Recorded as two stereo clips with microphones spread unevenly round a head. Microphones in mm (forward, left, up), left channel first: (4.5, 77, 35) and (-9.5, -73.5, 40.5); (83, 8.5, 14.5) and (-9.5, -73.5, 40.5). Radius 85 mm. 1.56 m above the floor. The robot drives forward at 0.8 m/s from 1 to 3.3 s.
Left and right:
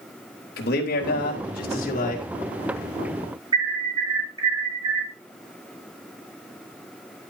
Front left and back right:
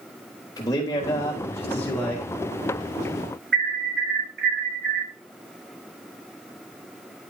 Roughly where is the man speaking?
Left.